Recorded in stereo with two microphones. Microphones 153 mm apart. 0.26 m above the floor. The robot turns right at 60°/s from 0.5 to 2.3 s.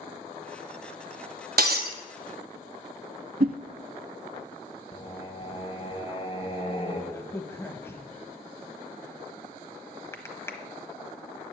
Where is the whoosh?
65° right (ahead or behind), 0.5 m.